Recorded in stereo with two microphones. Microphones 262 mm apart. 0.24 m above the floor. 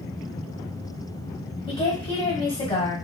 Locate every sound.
1.7 s a woman speaking: 20° left (ahead or behind), 1.1 m